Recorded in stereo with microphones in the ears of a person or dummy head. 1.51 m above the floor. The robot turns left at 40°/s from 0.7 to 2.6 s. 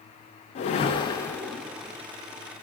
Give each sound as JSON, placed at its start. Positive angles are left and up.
{"t": 0.6, "sound": "a whoosh", "side_deg": 35, "distance_m": 0.6}